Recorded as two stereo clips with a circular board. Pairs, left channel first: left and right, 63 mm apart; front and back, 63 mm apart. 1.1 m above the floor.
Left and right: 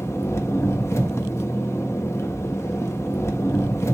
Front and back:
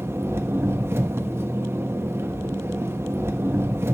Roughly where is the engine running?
Behind left.